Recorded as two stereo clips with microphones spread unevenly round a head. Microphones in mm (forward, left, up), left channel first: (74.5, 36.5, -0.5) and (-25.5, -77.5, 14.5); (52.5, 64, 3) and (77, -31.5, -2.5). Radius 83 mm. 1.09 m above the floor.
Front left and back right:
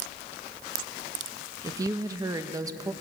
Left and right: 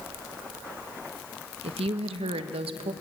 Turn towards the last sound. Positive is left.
turn(degrees=-60)